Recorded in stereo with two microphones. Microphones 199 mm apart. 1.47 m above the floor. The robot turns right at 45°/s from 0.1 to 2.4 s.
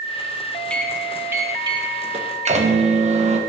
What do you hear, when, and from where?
0.7 s a microwave: 170° left, 0.6 m; by 3.4 s 115° right, 0.6 m